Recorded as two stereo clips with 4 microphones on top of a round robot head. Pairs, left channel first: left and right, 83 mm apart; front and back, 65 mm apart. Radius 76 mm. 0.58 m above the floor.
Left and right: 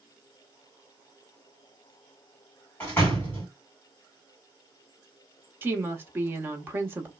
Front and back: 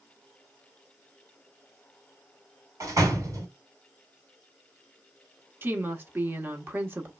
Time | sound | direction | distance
2.8 | a door slam | 155° left | 1.8 m
5.6 | a woman speaking | 140° right | 0.9 m